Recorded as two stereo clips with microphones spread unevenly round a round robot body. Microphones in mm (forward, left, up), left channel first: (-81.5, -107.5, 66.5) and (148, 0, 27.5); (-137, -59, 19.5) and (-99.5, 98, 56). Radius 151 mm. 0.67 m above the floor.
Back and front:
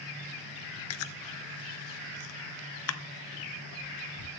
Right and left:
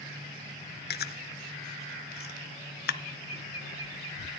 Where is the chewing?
135° right, 0.6 m.